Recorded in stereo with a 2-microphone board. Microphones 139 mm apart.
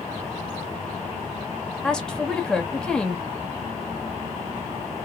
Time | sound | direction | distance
1.8 | a woman speaking | 5° left (ahead or behind) | 1.0 m